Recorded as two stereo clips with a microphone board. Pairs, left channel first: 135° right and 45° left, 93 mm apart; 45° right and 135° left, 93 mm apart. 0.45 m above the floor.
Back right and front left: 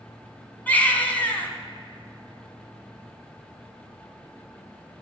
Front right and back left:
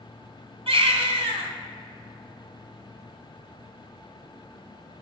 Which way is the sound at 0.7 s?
150° left.